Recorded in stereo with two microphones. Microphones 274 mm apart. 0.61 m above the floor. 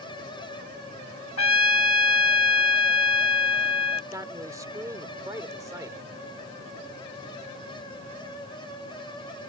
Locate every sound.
1.4 s a trumpet: 70° left (ahead or behind)
4.1 s a man speaking: 10° right (ahead or behind)